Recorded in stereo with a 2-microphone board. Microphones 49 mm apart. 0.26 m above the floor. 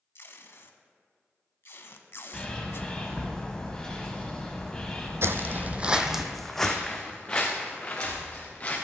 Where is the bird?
15° left (ahead or behind), 1.6 m.